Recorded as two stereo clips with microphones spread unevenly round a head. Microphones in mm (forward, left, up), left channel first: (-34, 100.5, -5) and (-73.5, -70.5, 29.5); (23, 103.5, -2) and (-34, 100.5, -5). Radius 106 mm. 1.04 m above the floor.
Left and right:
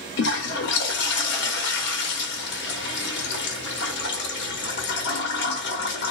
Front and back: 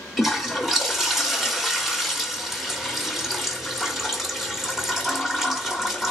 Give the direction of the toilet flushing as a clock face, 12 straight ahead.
9 o'clock.